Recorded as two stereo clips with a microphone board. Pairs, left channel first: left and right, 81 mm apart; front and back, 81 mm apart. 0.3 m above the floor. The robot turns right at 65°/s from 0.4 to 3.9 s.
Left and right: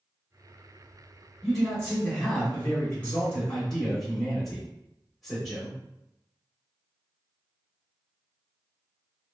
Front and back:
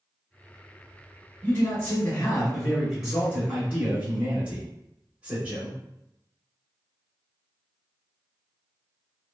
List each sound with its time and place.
1.4 s a man speaking: 5° left, 0.9 m; by 5.8 s 165° left, 0.9 m